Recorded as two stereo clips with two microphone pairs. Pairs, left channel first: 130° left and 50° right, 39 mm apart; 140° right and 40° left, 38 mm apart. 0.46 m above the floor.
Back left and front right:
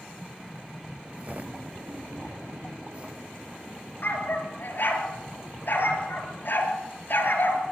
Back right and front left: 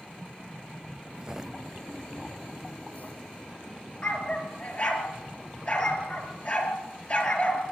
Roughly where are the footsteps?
Ahead.